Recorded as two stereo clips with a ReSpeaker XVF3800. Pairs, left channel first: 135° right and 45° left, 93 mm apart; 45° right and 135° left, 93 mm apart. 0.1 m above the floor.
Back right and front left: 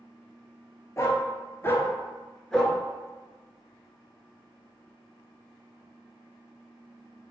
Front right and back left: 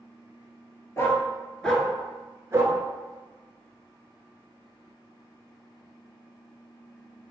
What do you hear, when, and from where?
1.0 s a dog barking: 90° right, 0.8 m; by 2.8 s 140° left, 0.7 m